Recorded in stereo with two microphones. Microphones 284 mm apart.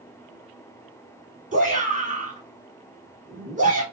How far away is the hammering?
I don't hear hammering.